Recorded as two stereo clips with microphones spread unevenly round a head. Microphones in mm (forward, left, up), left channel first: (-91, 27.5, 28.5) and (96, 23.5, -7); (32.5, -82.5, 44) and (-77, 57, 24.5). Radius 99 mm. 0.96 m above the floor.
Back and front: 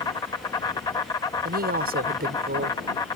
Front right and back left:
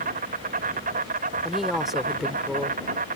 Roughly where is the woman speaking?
Ahead left.